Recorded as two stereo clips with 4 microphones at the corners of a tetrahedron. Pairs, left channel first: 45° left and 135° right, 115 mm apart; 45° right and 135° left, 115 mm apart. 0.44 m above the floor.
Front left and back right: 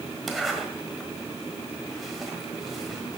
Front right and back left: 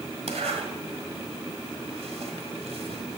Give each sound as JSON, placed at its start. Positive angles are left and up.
{"t": 0.3, "sound": "a zipper", "azimuth_deg": 135, "distance_m": 1.4}